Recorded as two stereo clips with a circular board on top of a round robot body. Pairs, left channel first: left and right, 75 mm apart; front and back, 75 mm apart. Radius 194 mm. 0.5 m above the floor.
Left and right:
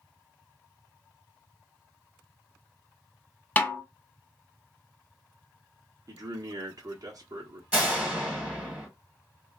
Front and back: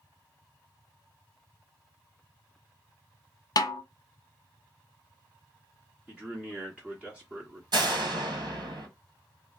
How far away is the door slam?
About 1.6 m.